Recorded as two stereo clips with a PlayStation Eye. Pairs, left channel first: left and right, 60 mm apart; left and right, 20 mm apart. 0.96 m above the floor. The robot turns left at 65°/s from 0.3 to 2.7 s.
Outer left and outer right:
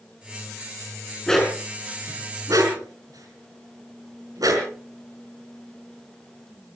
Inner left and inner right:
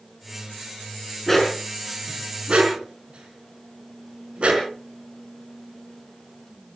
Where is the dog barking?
15° left (ahead or behind), 5 m; by 4.7 s 80° right, 5 m.